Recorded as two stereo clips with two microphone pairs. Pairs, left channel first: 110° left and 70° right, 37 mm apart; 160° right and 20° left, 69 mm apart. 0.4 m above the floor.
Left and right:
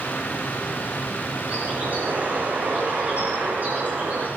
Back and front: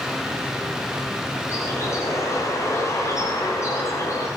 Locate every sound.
1.5 s a bird: 110° right, 7 m